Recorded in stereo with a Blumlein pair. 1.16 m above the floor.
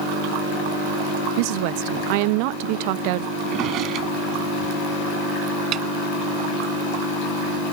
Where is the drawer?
35° right.